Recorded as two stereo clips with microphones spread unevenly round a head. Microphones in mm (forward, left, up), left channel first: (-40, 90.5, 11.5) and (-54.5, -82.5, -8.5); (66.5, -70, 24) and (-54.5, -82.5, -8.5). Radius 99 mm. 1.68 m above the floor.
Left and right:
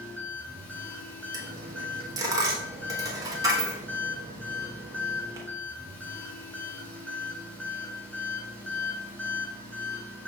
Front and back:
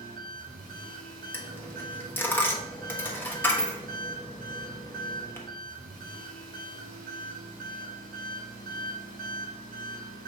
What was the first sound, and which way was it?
An engine running, 160° left.